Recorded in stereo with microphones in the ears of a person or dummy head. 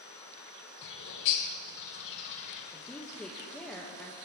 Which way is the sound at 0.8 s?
65° left (ahead or behind).